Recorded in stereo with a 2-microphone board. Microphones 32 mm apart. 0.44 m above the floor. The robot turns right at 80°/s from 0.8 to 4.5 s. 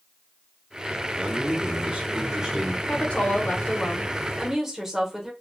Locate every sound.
1.2 s a man speaking: 130° right, 0.9 m; by 2.8 s straight ahead, 0.9 m
2.9 s a woman speaking: 65° left, 1.1 m; by 5.3 s 165° right, 1.1 m